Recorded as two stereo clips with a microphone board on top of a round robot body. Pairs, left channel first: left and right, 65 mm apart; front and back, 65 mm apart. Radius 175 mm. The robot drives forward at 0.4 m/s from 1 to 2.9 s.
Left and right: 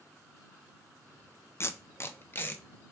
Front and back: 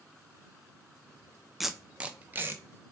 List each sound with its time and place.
1.6 s tape being pulled: 90° left, 0.7 m; by 2.6 s 140° left, 0.8 m